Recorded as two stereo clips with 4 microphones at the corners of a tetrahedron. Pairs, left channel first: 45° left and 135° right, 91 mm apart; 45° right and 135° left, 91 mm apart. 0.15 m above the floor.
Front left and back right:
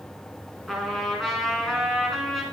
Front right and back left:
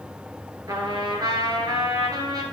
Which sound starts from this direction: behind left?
A trumpet, at 0.7 s.